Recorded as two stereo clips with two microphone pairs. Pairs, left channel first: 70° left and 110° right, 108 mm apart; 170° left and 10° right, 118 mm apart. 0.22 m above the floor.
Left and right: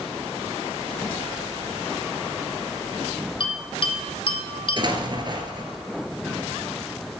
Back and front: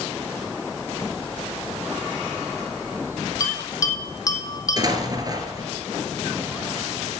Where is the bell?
110° left, 1.4 m.